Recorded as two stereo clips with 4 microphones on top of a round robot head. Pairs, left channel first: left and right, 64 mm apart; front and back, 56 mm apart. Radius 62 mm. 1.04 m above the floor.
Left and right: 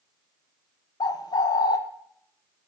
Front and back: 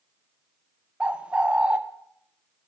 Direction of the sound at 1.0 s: 110° left.